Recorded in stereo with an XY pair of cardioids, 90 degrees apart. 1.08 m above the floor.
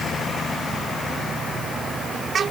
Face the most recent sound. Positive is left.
No sound to turn to.